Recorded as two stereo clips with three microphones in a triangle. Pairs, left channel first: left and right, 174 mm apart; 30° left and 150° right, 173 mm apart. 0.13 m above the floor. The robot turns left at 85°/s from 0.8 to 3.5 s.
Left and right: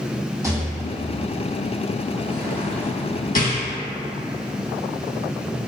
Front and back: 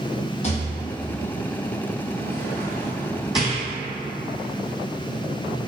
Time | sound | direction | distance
0.4 | a rattle | 20° right | 0.7 m